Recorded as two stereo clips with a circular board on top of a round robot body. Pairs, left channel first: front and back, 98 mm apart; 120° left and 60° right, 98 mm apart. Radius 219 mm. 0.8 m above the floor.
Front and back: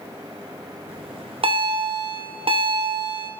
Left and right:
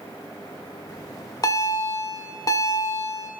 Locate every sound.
0.9 s a bell: 170° left, 1.9 m